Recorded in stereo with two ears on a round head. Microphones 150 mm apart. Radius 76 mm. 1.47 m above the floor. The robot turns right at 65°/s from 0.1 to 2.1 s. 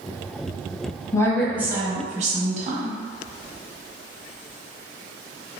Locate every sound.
1.1 s a woman speaking: 160° left, 1.0 m; by 3.0 s 140° right, 1.0 m